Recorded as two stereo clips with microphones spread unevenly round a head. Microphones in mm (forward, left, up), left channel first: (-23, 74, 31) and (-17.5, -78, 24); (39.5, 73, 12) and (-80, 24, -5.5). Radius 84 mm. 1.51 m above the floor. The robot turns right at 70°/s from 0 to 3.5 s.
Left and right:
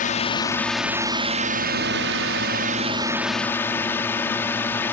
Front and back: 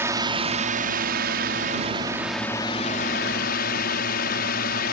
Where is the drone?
130° left; by 4.9 s 15° left.